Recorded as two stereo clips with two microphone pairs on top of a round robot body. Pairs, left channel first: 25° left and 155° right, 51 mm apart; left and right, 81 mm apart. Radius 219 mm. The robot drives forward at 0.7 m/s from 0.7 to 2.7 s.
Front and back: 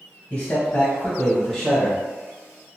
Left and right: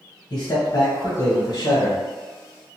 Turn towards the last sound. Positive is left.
turn(degrees=140)